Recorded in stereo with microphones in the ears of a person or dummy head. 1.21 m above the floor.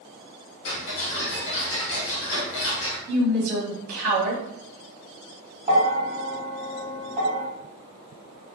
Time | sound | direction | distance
0.7 | ticking | 75° left (ahead or behind) | 1.0 m
3.1 | a woman speaking | 50° right (ahead or behind) | 1.2 m
5.7 | a bell | 35° right (ahead or behind) | 0.6 m